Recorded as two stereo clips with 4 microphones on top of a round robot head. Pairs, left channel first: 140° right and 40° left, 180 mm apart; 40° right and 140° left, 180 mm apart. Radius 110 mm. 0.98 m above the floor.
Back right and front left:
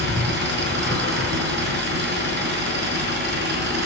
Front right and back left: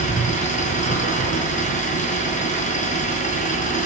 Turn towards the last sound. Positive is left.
turn(degrees=10)